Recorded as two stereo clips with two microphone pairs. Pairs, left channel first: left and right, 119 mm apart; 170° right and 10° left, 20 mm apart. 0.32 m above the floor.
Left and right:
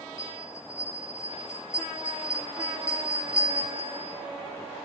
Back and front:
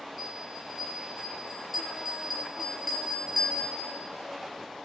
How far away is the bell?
About 5.5 m.